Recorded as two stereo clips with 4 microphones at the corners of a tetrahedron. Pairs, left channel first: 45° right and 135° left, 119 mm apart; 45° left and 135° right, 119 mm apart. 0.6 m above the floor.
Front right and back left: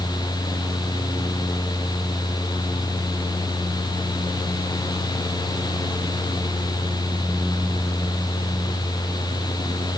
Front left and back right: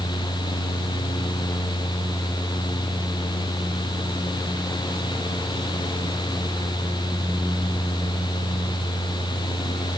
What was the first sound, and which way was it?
Only background noise.